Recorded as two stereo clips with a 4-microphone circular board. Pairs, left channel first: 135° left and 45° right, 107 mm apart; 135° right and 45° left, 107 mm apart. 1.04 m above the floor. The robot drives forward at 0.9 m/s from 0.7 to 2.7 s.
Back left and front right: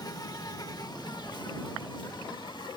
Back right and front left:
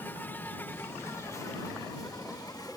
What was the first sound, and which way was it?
An insect, 165° left.